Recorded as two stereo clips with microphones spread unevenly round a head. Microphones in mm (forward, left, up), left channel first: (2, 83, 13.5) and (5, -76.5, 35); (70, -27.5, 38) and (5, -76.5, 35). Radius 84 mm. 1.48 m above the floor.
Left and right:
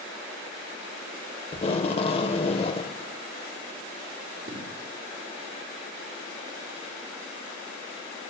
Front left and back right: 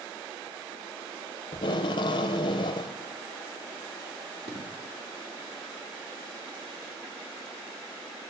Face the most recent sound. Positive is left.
turn(degrees=-130)